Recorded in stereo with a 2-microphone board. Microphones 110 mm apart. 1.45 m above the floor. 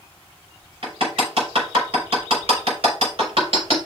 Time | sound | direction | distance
0.8 | hammering | 65° right (ahead or behind) | 4 m